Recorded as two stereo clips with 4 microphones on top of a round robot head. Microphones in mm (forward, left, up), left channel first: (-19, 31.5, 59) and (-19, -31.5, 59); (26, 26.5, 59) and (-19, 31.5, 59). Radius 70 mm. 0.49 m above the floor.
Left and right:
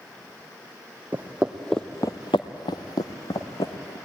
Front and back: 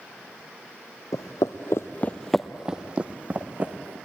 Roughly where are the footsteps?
Ahead.